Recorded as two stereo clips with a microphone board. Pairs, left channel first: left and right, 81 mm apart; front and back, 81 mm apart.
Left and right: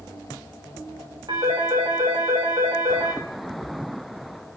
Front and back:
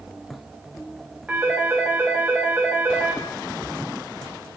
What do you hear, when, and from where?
1.3 s a phone ringing: 105° right, 8 m